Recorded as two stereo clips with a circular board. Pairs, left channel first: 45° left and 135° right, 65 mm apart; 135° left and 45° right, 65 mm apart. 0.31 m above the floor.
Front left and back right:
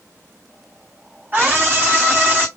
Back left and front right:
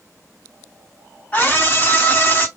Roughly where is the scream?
Behind.